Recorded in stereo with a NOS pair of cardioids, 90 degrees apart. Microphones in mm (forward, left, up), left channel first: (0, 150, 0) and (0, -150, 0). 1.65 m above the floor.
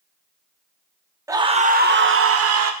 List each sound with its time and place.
1.3 s a scream: 10° right, 1.1 m; by 2.7 s 55° right, 1.5 m